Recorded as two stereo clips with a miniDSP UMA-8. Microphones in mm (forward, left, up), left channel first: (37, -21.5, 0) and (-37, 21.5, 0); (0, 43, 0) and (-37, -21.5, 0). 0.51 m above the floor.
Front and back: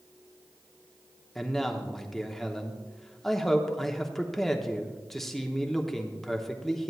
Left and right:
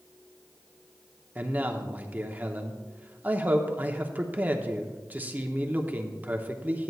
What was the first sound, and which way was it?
A man speaking, 110° right.